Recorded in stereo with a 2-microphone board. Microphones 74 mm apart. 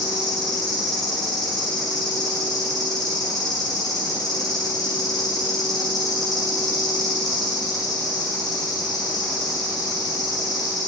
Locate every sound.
0.0 s an insect: 65° left (ahead or behind), 5 m